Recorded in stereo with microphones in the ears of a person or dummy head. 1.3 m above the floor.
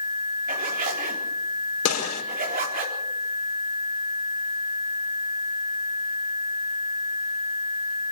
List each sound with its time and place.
0.5 s a zipper: 45° right (ahead or behind), 4 m
1.9 s a gunshot: 80° left, 4.5 m